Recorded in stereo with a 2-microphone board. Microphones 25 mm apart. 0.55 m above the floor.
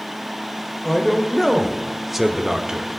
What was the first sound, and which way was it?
A man speaking, 10° left (ahead or behind).